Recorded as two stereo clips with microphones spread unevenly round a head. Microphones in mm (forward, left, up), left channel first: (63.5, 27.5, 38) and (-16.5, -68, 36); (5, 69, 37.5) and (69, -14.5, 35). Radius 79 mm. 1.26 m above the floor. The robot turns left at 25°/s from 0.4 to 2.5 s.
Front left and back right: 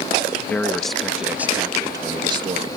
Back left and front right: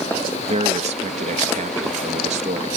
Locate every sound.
0.5 s a man speaking: 30° right; by 2.8 s 80° right